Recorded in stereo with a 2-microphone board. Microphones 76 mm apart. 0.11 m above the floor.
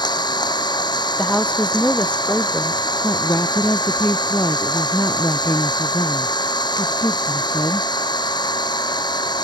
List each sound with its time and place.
0.0 s an engine running: 70° left (ahead or behind)
1.2 s a woman speaking: 15° left (ahead or behind)
3.0 s a woman speaking: 40° left (ahead or behind)